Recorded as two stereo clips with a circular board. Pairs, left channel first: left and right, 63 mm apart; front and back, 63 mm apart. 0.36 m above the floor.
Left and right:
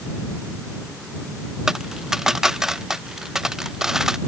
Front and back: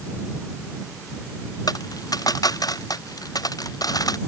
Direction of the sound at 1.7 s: 10° right.